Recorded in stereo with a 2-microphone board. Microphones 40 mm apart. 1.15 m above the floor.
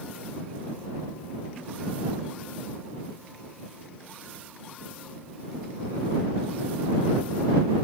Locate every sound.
Only background noise.